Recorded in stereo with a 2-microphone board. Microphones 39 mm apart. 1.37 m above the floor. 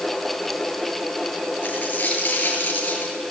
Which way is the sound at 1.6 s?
45° left (ahead or behind).